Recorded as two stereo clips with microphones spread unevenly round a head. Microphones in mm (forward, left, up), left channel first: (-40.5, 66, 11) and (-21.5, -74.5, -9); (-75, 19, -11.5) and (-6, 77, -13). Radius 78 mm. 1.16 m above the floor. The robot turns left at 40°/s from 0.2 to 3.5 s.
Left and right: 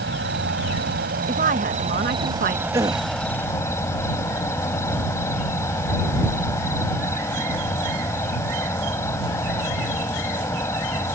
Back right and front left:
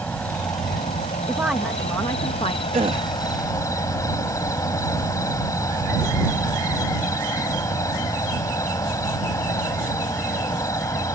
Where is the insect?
60° right; by 11.2 s 170° left.